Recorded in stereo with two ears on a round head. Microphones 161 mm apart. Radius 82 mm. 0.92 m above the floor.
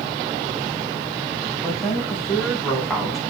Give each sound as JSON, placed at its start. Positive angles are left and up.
{"t": 1.6, "sound": "a woman speaking", "side_deg": 5, "distance_m": 7.5}